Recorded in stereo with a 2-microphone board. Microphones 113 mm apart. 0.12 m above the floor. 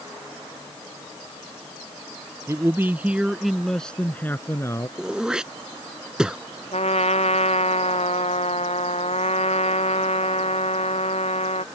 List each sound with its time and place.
2.5 s a man speaking: 25° right (ahead or behind); by 4.9 s 30° left (ahead or behind)
5.0 s throat clearing: 5° right (ahead or behind)
6.7 s a trumpet: 70° left (ahead or behind)